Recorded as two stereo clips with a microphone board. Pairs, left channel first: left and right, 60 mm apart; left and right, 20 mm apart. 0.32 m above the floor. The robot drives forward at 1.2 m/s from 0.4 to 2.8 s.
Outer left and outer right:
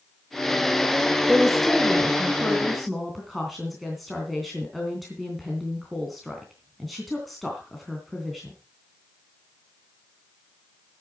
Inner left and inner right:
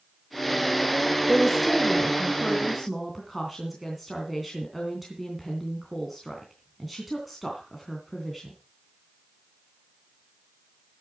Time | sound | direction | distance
1.3 | a woman speaking | centre (ahead or behind) | 1.3 m